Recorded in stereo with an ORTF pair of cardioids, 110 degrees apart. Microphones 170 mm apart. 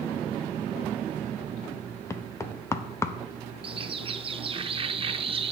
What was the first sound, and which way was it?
Knocking, 15° left.